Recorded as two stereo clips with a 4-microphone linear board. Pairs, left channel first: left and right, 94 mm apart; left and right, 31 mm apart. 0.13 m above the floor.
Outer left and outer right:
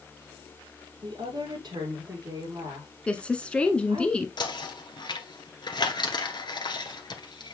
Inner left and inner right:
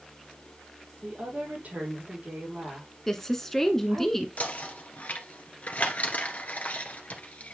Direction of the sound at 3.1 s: 10° left (ahead or behind).